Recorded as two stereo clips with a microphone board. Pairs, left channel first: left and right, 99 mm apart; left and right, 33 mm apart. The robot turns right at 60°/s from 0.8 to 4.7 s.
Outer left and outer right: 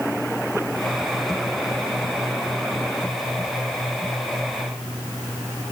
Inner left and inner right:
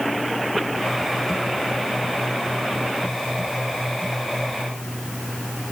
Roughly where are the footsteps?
I don't hear footsteps.